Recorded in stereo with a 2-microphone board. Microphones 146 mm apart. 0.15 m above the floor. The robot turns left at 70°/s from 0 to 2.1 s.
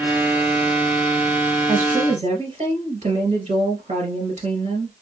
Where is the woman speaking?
60° right (ahead or behind), 2 m; by 4.9 s 55° right (ahead or behind), 2 m.